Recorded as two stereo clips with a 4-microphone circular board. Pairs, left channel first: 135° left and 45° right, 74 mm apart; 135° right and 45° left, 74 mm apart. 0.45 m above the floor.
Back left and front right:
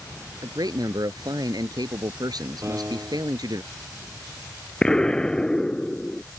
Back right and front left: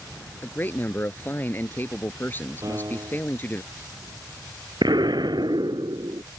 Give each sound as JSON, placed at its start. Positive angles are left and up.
{"t": 0.4, "sound": "a man speaking", "azimuth_deg": -75}
{"t": 2.6, "sound": "a piano", "azimuth_deg": 10}
{"t": 4.8, "sound": "an explosion", "azimuth_deg": 55}